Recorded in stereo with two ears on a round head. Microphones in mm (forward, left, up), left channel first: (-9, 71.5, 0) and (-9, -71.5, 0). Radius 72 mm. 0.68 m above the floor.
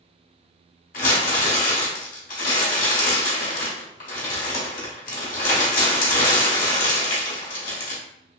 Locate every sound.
0.9 s crumpling: 55° left (ahead or behind), 1.3 m